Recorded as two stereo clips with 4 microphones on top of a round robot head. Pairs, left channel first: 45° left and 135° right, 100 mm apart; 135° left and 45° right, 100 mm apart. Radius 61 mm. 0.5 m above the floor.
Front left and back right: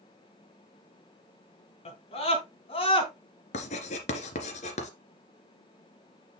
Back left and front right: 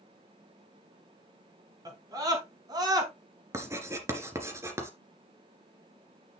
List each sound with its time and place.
1.9 s a scream: 15° left, 5 m; by 3.1 s 10° left, 4 m
3.5 s writing: 25° left, 2.5 m